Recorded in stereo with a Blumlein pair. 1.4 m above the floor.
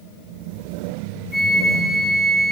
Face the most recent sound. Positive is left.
turn(degrees=5)